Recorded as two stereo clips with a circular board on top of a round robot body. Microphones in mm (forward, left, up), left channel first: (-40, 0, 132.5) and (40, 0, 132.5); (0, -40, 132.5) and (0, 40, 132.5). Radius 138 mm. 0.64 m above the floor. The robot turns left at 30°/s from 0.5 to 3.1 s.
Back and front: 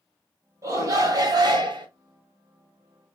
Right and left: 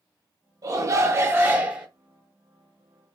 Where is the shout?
50° left, 1.7 m; by 1.9 s 10° left, 1.7 m.